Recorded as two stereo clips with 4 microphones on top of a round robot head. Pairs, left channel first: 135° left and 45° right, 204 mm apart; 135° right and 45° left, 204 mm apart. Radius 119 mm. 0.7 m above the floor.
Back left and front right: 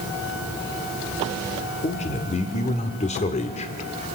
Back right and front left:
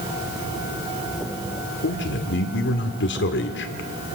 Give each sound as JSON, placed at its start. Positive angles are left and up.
{"t": 1.8, "sound": "a man speaking", "azimuth_deg": -165, "distance_m": 1.8}